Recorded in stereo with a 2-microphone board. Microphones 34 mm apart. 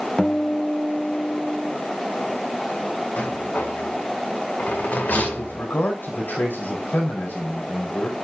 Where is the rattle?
50° left (ahead or behind), 1.7 m.